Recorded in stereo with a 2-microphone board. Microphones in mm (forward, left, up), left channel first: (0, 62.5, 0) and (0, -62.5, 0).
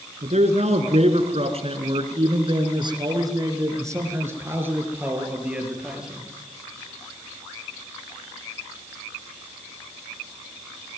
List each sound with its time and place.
0.2 s a man speaking: 65° right (ahead or behind), 3 m; by 6.3 s 5° right (ahead or behind), 4.5 m